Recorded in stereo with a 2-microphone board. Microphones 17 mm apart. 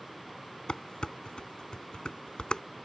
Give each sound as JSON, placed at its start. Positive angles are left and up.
{"t": 0.7, "sound": "dishes clattering", "side_deg": 60}